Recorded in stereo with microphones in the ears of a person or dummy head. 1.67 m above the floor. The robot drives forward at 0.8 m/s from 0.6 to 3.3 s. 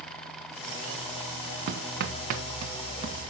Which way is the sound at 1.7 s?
60° right (ahead or behind).